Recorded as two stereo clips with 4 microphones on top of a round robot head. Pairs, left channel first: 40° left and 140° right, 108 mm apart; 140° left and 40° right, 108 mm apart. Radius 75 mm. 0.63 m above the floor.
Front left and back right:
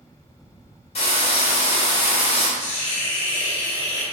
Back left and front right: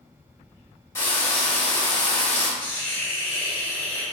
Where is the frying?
70° left, 3.5 m.